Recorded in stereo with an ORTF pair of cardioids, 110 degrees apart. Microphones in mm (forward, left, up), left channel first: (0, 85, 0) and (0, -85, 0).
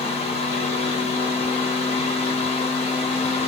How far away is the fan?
About 1.1 m.